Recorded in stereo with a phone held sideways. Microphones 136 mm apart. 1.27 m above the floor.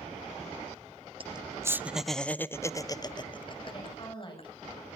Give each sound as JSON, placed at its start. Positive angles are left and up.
{"t": 1.2, "sound": "laughter", "side_deg": -40, "distance_m": 0.6}
{"t": 3.7, "sound": "a woman speaking", "side_deg": 35, "distance_m": 8.0}